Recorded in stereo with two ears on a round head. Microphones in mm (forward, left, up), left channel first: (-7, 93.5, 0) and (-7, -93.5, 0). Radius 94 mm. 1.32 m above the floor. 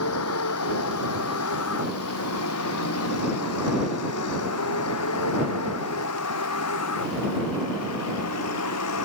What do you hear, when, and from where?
0.0 s a vehicle: 85° left; by 9.1 s 90° left